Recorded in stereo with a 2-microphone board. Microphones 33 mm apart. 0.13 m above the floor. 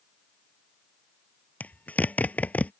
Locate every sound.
1.6 s a zipper: 55° left (ahead or behind)